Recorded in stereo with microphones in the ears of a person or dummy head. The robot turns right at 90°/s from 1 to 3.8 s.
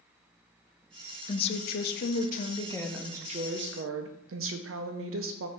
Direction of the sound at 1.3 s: 30° left.